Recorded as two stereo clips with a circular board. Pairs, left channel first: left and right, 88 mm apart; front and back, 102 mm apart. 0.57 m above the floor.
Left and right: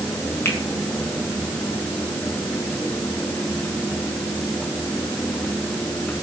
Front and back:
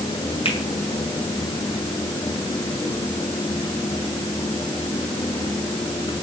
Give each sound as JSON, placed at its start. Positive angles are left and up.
{"t": 0.5, "sound": "a finger snap", "azimuth_deg": 25, "distance_m": 5.5}